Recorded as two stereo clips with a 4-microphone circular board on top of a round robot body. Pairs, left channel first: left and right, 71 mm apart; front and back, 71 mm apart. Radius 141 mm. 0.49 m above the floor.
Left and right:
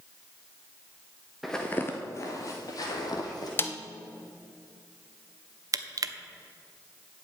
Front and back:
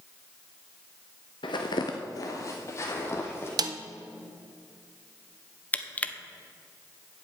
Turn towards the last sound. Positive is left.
turn(degrees=-65)